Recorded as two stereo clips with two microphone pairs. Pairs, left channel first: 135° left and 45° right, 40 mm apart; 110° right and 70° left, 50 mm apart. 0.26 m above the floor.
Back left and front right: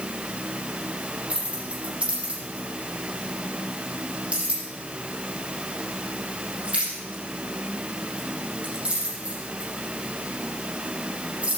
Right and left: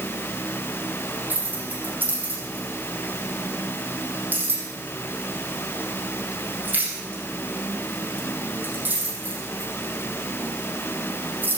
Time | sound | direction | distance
1.3 | keys jangling | 20° left | 6 m